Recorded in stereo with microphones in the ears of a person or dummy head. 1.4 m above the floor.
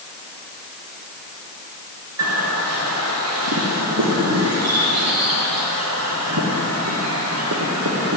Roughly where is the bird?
Right.